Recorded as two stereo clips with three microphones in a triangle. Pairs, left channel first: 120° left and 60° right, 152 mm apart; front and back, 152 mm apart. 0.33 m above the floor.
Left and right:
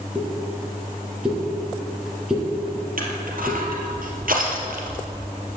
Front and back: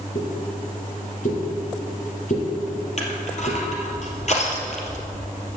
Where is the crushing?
40° right, 2.5 m.